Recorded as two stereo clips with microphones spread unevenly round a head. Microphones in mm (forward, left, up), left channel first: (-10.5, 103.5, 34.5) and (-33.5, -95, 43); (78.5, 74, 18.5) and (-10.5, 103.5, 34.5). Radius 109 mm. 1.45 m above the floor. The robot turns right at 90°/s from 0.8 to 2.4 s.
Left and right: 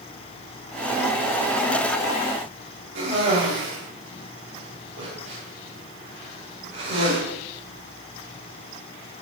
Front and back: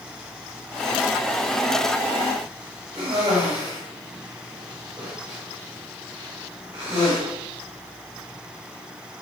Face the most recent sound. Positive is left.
turn(degrees=-125)